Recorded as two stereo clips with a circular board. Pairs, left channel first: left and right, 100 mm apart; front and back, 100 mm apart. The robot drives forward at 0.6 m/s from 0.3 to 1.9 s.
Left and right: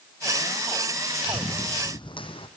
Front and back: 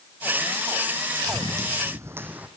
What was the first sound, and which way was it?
Running footsteps, 130° left.